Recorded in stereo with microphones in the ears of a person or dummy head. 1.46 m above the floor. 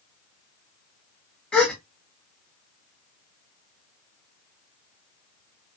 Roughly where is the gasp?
Centre.